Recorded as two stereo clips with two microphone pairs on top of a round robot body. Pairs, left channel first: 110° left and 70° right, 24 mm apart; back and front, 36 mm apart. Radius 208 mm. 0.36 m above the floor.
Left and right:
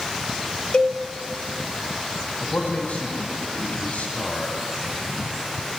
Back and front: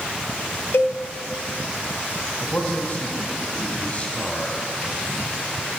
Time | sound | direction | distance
0.7 | a cowbell | 160° left | 1.0 m
2.4 | a man speaking | 125° left | 3.5 m